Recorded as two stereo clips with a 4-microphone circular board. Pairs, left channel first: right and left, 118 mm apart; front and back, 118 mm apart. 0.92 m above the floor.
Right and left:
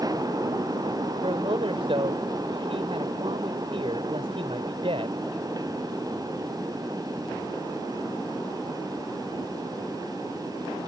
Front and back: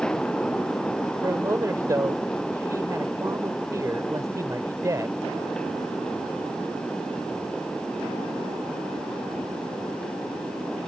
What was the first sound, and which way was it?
A man speaking, 120° left.